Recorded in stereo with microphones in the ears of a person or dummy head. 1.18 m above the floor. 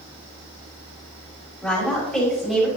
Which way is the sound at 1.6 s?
5° left (ahead or behind).